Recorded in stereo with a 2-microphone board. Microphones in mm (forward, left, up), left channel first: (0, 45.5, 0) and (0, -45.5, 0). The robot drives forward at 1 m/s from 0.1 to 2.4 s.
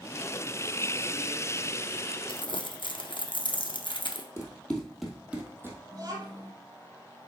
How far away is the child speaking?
About 4 m.